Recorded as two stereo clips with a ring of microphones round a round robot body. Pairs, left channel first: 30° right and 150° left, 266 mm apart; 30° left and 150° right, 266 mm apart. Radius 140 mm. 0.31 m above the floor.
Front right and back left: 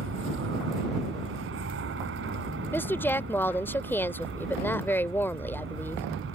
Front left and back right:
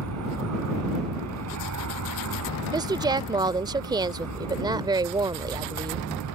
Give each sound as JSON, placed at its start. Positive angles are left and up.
{"t": 0.0, "sound": "an aircraft", "azimuth_deg": -170}
{"t": 2.7, "sound": "a woman speaking", "azimuth_deg": -100}